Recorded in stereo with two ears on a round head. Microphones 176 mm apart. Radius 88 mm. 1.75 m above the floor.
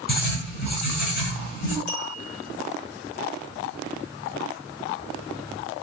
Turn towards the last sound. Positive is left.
turn(degrees=60)  # may be behind; listen again after turning